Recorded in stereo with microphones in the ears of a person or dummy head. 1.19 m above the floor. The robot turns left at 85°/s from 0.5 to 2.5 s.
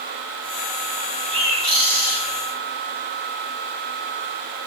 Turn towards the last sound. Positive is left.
turn(degrees=-170)